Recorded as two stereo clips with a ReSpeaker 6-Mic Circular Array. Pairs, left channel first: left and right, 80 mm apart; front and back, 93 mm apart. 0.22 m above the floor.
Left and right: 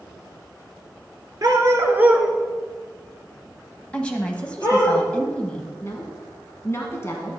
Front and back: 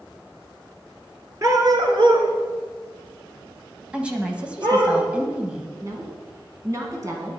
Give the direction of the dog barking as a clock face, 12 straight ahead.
4 o'clock.